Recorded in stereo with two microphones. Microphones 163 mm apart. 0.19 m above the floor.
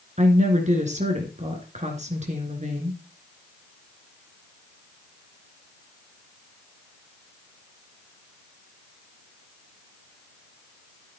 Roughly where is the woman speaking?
Right.